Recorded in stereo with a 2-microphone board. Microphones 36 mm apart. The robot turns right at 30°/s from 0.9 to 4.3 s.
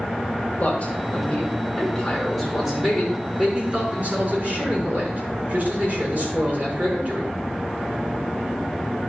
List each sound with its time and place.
0.6 s a man speaking: 130° left, 5.5 m; by 7.3 s 125° right, 5.5 m